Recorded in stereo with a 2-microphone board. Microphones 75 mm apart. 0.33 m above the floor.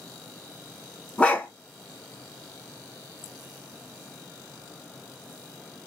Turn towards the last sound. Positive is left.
turn(degrees=15)  # may be behind; listen again after turning